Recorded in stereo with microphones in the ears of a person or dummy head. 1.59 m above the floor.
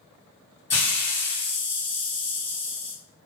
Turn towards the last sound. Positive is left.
turn(degrees=0)  # may be behind; listen again after turning